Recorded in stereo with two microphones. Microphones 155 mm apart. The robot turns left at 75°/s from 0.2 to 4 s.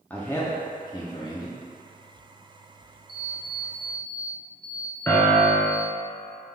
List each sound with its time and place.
0.1 s a man speaking: 10° left (ahead or behind), 0.6 m; by 1.6 s 25° left (ahead or behind), 0.6 m
3.1 s an alarm clock: 85° right, 0.7 m; by 5.9 s 155° right, 0.7 m
5.1 s a piano: 15° left (ahead or behind), 0.9 m